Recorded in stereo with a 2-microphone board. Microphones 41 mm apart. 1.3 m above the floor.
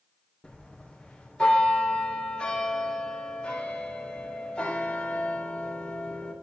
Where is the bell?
25° left (ahead or behind), 3 m.